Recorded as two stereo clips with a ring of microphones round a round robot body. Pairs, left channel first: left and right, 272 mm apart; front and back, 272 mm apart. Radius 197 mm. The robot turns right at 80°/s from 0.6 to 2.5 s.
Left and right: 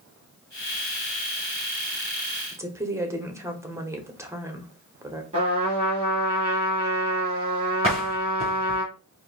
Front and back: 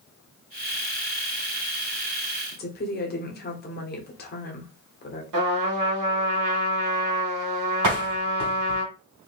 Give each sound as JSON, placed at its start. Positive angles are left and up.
{"t": 2.5, "sound": "a woman speaking", "azimuth_deg": -15, "distance_m": 1.3}
{"t": 5.3, "sound": "a trumpet", "azimuth_deg": -165, "distance_m": 2.5}
{"t": 7.8, "sound": "a door slam", "azimuth_deg": -165, "distance_m": 2.5}